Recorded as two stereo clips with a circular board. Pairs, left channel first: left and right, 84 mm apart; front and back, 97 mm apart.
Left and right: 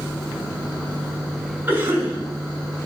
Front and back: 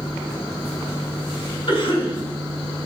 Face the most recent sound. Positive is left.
turn(degrees=-25)